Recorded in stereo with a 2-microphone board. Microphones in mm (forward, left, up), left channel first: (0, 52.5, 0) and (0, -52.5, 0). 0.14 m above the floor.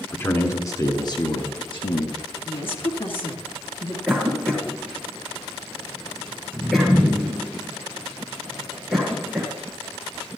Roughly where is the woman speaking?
Left.